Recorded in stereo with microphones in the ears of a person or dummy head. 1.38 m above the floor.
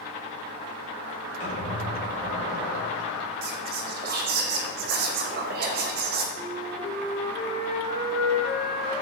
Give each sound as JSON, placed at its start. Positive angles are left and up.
{"t": 1.4, "sound": "a squeak", "side_deg": 35, "distance_m": 1.3}
{"t": 3.4, "sound": "whispering", "side_deg": -35, "distance_m": 0.6}
{"t": 6.3, "sound": "a flute", "side_deg": 35, "distance_m": 1.6}